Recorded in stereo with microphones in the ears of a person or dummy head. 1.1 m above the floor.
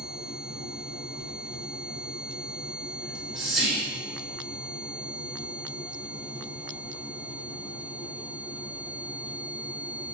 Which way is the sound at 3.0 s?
Centre (ahead or behind).